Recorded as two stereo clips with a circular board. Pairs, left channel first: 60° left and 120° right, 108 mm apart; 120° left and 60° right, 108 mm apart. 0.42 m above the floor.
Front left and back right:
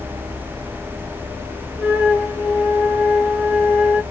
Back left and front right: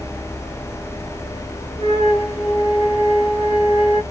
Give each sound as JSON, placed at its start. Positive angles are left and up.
{"t": 1.8, "sound": "a flute", "azimuth_deg": 115, "distance_m": 1.5}